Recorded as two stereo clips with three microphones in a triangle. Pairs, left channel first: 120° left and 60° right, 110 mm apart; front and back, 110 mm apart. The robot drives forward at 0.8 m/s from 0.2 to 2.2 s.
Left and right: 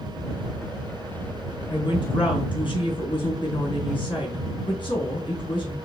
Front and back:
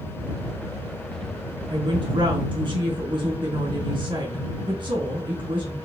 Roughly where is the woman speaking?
Behind left.